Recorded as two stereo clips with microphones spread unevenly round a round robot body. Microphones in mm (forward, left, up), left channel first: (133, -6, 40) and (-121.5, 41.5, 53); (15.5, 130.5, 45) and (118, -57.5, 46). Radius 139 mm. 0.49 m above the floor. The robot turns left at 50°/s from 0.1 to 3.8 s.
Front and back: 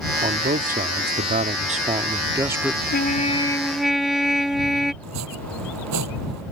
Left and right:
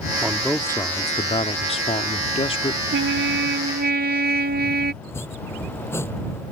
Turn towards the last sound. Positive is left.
turn(degrees=-160)